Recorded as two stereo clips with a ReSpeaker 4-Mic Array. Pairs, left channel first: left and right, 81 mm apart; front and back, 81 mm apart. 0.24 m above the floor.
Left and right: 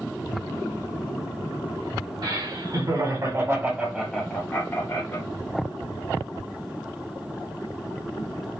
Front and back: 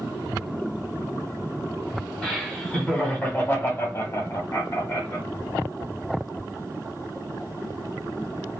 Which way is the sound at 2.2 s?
85° right.